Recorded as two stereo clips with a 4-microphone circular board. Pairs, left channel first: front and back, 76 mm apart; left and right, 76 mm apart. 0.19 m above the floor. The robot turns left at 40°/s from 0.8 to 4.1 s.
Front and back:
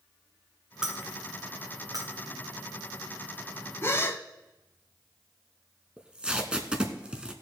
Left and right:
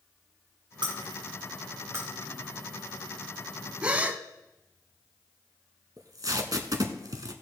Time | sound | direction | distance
0.8 | breaking glass | 100° right | 3 m
3.8 | a gasp | 25° right | 0.7 m
6.0 | tape being pulled | 105° right | 1.1 m